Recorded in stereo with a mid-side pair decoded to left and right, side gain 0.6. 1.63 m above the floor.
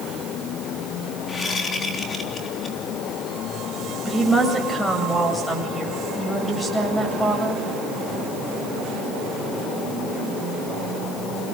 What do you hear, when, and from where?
1.3 s a whoosh: 30° left, 3.5 m
4.0 s a woman speaking: 15° left, 8 m